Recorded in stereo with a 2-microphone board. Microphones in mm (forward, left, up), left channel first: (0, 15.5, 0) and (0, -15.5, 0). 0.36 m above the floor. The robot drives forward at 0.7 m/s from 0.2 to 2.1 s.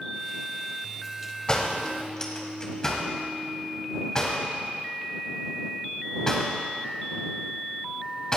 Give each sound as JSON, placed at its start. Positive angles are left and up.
{"t": 1.5, "sound": "a door slam", "side_deg": 25, "distance_m": 1.5}